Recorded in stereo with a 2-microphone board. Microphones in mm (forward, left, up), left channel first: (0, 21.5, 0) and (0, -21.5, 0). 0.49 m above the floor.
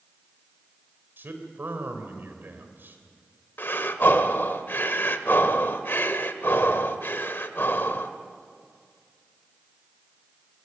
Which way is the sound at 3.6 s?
55° left (ahead or behind).